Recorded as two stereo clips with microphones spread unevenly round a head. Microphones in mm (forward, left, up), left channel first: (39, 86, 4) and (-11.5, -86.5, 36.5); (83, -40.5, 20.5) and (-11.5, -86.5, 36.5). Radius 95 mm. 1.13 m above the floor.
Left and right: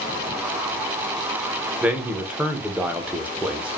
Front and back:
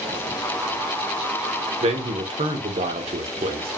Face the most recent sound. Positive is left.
turn(degrees=165)